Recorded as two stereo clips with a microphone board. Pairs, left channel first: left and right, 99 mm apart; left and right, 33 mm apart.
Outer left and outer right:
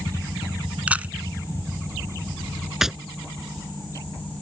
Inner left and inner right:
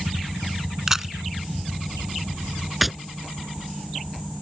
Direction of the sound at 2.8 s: 5° right (ahead or behind).